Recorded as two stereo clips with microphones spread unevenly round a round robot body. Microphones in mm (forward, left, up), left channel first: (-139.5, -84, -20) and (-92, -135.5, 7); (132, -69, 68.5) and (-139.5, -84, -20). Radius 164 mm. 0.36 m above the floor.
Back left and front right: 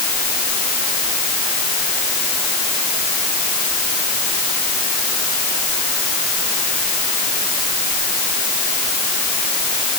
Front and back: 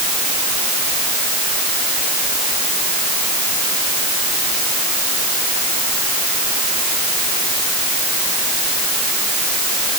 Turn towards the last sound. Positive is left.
No sound to turn to.